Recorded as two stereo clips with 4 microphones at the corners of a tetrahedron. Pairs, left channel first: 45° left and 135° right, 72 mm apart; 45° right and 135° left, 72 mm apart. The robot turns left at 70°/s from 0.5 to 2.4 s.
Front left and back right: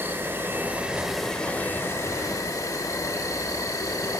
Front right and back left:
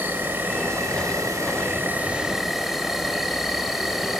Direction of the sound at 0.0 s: Straight behind.